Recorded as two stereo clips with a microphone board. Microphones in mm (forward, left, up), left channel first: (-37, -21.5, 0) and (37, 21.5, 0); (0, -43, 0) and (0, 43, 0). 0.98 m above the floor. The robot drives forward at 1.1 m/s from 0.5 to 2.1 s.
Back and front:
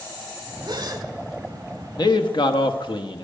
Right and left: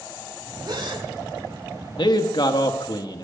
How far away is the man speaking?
About 1.0 m.